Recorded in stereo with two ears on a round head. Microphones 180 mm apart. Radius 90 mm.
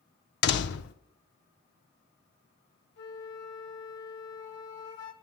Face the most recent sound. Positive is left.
turn(degrees=60)  # may be behind; listen again after turning